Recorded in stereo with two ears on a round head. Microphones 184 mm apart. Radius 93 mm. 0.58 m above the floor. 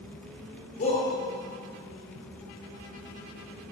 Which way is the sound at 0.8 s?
40° left (ahead or behind).